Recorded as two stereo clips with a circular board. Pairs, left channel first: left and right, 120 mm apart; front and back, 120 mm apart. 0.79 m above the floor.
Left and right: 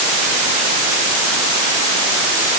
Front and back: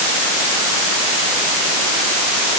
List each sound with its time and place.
Only background noise.